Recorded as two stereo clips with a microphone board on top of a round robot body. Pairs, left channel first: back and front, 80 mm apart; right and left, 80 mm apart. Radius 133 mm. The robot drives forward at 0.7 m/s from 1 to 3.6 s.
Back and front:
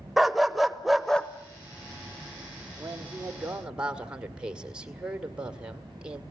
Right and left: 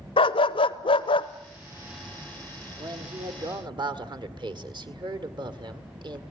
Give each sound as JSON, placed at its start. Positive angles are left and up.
{"t": 0.2, "sound": "a dog barking", "azimuth_deg": -90, "distance_m": 0.7}
{"t": 2.8, "sound": "a man speaking", "azimuth_deg": 65, "distance_m": 2.5}